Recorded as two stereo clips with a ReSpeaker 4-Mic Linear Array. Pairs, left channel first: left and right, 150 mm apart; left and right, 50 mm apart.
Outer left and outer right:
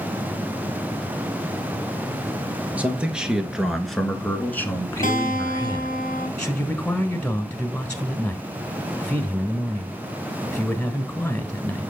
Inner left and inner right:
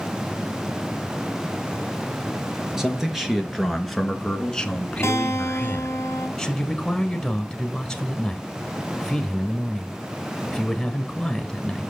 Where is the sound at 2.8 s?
10° right (ahead or behind), 2.5 m; by 6.0 s 30° left (ahead or behind), 1.7 m.